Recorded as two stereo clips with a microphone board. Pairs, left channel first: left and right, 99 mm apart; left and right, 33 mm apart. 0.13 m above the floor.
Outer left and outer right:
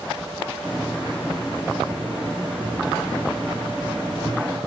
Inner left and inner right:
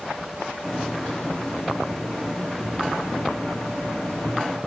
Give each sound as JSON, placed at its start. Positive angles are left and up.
{"t": 0.6, "sound": "a hiss", "side_deg": -10, "distance_m": 6.0}